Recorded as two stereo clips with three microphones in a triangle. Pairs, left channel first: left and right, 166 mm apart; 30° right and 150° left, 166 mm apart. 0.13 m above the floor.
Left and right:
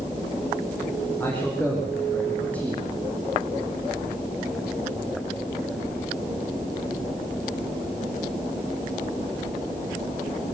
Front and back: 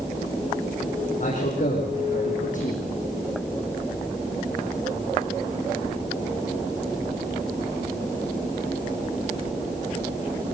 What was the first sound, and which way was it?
A man speaking, 10° left.